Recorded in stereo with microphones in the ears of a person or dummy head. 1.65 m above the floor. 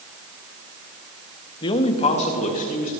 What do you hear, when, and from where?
1.6 s a man speaking: 15° left (ahead or behind), 0.8 m; by 2.9 s 35° left (ahead or behind), 2 m